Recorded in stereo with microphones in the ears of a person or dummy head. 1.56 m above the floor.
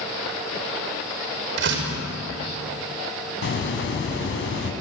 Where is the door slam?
70° right (ahead or behind), 5.5 m.